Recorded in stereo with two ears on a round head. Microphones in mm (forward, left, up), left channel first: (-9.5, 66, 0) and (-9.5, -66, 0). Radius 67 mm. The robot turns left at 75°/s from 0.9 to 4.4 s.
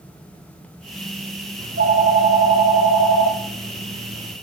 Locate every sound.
1.6 s a phone ringing: 70° right, 1.0 m; by 4.3 s 85° left, 1.0 m